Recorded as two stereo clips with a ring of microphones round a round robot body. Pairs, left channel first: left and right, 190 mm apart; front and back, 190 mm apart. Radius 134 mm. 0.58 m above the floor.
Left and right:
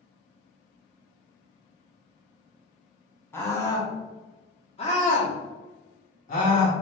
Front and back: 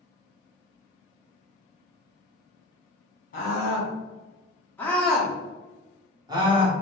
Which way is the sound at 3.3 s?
15° left.